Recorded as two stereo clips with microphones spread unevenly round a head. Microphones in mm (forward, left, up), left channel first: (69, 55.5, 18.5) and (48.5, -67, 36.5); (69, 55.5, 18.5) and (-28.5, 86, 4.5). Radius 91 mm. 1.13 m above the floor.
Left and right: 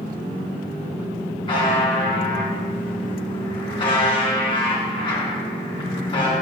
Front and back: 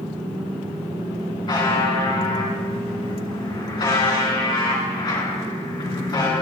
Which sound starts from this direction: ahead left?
A buzzer, at 1.5 s.